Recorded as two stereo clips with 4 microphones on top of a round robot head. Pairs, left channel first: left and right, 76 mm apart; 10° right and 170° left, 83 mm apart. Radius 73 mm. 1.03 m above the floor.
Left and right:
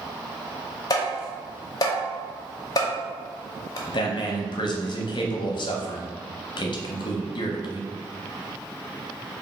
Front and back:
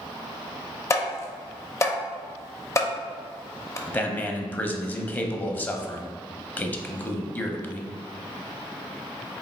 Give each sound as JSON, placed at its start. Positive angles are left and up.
{"t": 0.9, "sound": "tapping", "azimuth_deg": 45, "distance_m": 0.7}
{"t": 3.9, "sound": "a man speaking", "azimuth_deg": 60, "distance_m": 0.6}